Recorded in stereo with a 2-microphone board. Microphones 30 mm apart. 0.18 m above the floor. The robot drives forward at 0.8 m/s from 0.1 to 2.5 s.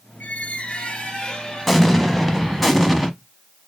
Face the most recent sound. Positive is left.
turn(degrees=5)  # may be behind; listen again after turning